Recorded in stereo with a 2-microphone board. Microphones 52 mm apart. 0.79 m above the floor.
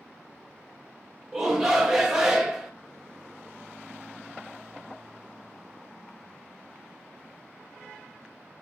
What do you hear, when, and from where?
1.3 s a shout: 5° right (ahead or behind), 1.0 m